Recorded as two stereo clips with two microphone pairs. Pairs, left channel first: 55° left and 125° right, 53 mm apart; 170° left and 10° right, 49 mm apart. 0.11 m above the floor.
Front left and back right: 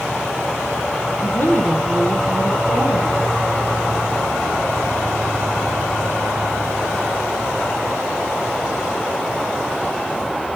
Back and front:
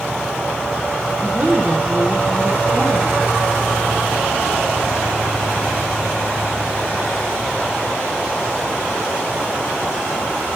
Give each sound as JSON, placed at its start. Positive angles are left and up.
{"t": 1.2, "sound": "a woman speaking", "azimuth_deg": 25, "distance_m": 2.0}